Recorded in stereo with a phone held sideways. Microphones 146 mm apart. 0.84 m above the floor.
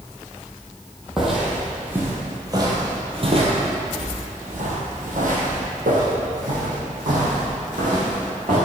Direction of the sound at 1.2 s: Centre (ahead or behind).